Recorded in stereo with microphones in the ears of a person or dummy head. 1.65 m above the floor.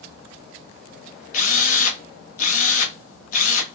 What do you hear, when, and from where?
1.3 s a drill: 45° left (ahead or behind), 0.9 m